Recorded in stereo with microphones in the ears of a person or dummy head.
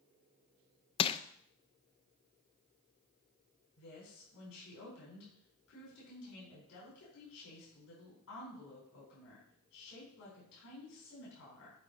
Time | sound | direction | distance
1.0 | crushing | 30° left (ahead or behind) | 0.5 m
3.8 | a woman speaking | 70° left (ahead or behind) | 4.5 m